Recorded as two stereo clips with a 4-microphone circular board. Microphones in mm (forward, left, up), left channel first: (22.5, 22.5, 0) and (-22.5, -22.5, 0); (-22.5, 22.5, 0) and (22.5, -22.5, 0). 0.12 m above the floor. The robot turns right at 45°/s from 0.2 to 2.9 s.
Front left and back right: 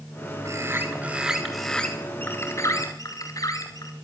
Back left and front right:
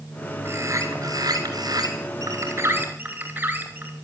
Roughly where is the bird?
Right.